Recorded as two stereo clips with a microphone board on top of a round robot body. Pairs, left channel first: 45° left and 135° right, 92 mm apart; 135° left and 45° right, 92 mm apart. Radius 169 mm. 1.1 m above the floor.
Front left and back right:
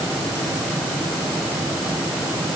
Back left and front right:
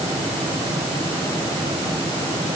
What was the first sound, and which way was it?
Only background noise.